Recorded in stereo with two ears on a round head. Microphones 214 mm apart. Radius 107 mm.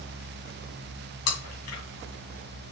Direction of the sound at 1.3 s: 70° left (ahead or behind).